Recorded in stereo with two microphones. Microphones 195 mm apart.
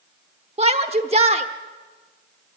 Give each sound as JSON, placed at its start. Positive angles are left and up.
{"t": 0.6, "sound": "a shout", "side_deg": -30, "distance_m": 0.9}